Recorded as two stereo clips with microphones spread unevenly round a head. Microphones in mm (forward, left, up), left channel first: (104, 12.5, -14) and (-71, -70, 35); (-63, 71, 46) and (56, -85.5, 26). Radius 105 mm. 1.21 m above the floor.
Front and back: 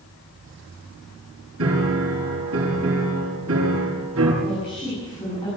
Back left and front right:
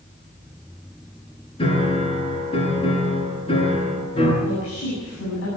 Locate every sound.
1.6 s a piano: 170° right, 7 m
4.4 s a woman speaking: 95° left, 8 m